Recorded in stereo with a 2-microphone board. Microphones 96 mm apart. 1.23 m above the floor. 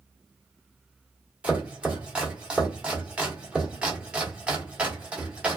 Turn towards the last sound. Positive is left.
turn(degrees=-10)  # may be behind; listen again after turning